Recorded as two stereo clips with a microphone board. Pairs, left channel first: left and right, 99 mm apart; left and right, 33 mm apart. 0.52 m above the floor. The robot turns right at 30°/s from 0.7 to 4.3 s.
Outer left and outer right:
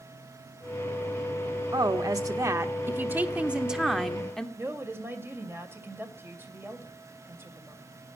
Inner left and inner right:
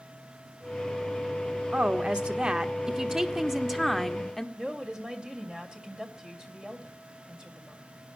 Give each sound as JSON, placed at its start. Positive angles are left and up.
{"t": 1.7, "sound": "a woman speaking", "azimuth_deg": -70, "distance_m": 1.3}
{"t": 4.6, "sound": "a woman speaking", "side_deg": -25, "distance_m": 2.5}